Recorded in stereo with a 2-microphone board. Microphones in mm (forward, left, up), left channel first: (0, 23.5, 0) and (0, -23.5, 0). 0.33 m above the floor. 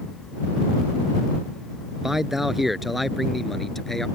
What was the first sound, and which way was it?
A man speaking, 10° right (ahead or behind).